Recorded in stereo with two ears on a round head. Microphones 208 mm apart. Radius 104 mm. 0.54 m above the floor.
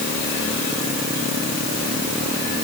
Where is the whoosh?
No whoosh in this recording.